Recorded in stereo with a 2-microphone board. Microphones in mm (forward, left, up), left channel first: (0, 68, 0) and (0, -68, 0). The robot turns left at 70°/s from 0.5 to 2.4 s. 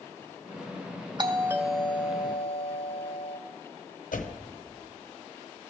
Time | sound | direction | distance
1.2 | a doorbell | 140° right | 0.6 m
4.1 | a door slam | 75° left (ahead or behind) | 0.8 m